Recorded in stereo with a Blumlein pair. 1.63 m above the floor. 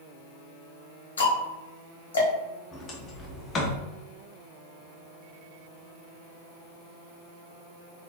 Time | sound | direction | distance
1.2 | ticking | 65° left | 1.1 m
2.7 | a sliding door | 25° left | 0.7 m